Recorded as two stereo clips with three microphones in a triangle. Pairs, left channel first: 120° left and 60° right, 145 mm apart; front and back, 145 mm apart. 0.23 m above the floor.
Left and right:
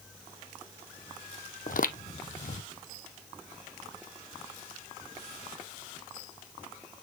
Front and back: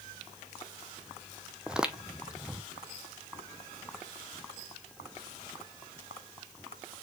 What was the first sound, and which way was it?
Footsteps, 95° left.